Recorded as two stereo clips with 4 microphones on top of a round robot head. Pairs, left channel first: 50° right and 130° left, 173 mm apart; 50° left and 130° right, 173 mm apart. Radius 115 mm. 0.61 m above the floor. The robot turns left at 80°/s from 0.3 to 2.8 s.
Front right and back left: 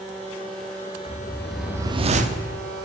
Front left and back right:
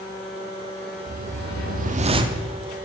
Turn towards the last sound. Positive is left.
turn(degrees=125)